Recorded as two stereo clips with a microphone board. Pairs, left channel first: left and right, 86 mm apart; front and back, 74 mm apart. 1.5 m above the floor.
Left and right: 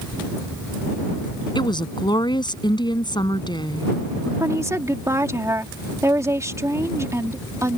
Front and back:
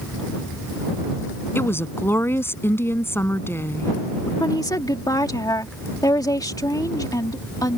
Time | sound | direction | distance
1.6 | a woman speaking | 60° left | ?
4.4 | a woman speaking | 35° right | ?